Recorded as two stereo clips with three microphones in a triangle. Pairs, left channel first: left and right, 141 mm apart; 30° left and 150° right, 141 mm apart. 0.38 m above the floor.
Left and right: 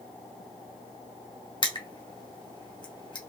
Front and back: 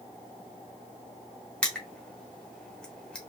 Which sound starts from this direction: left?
Crushing, at 1.6 s.